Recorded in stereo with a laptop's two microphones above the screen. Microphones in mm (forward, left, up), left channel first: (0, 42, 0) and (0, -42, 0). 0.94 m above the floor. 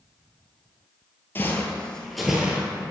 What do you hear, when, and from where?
1.4 s footsteps: 25° left (ahead or behind), 1.0 m; by 2.7 s 15° right (ahead or behind), 1.0 m